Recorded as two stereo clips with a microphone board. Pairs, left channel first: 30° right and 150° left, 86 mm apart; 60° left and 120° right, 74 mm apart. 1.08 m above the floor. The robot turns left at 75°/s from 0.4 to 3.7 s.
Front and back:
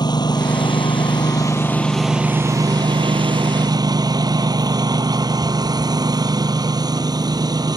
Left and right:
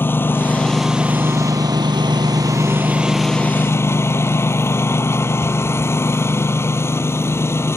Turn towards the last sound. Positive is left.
turn(degrees=115)